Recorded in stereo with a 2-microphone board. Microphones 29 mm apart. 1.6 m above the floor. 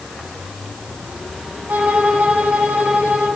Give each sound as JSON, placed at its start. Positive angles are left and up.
{"t": 1.7, "sound": "a violin", "side_deg": -80, "distance_m": 5.0}